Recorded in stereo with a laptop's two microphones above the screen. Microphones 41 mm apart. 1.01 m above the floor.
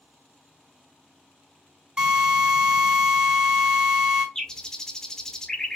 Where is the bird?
15° left (ahead or behind), 0.5 m.